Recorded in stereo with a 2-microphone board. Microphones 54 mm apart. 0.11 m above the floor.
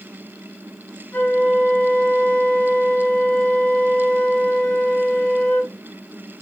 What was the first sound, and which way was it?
A flute, 25° left (ahead or behind).